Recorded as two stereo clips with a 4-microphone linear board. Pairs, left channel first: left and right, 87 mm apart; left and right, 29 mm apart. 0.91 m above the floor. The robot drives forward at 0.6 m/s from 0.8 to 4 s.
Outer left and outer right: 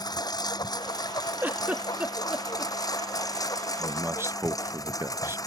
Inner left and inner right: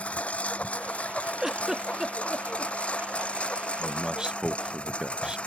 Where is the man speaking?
25° right (ahead or behind); by 5.4 s 30° right (ahead or behind).